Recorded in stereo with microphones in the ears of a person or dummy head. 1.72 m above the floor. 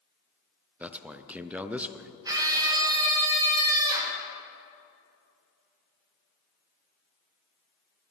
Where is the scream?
20° right (ahead or behind), 3 m.